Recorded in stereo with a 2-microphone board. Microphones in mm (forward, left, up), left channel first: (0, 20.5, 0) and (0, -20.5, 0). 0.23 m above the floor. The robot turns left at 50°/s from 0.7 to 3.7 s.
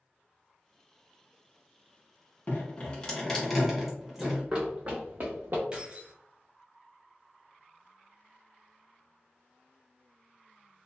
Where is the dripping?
40° left (ahead or behind), 1.1 m; by 4.4 s 10° right (ahead or behind), 1.1 m.